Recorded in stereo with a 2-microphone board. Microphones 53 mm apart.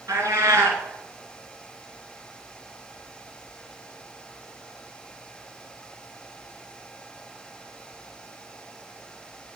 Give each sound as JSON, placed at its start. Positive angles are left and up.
{"t": 0.1, "sound": "a cat meowing", "side_deg": -70, "distance_m": 2.5}